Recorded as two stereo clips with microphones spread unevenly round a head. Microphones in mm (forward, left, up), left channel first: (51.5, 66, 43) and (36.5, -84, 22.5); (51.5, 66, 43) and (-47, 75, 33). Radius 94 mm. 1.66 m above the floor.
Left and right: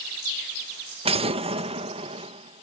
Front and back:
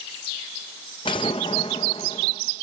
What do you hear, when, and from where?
1.1 s an explosion: 45° right